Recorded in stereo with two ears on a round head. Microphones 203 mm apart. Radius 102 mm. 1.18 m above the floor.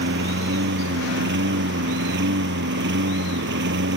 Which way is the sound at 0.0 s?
55° right (ahead or behind).